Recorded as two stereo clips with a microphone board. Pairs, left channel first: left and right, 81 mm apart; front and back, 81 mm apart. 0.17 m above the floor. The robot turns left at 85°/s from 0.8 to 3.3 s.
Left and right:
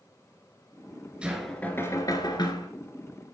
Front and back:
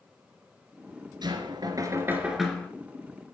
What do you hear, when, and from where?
1.2 s knocking: 165° right, 2 m; by 2.7 s 70° left, 2 m